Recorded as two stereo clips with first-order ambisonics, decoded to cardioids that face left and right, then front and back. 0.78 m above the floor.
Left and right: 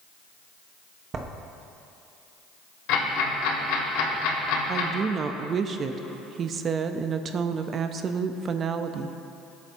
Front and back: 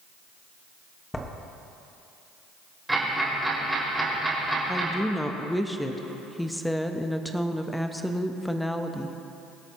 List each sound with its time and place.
1.1 s writing: 70° right, 0.9 m
2.9 s ticking: 95° left, 3 m
4.7 s a woman speaking: 85° right, 0.5 m